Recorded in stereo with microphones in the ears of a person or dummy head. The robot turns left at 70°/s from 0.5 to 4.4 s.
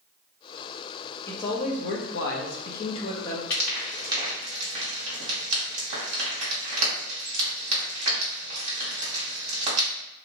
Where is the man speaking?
165° left, 0.8 m; by 3.4 s 15° left, 0.8 m.